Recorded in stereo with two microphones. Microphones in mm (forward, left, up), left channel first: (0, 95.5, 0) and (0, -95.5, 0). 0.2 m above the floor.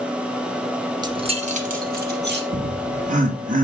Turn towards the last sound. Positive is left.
turn(degrees=-40)  # may be behind; listen again after turning